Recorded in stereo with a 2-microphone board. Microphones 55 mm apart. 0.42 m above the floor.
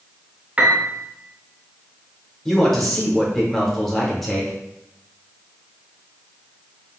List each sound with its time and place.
0.6 s a piano: 25° right (ahead or behind), 0.5 m
2.5 s a man speaking: 5° left (ahead or behind), 0.8 m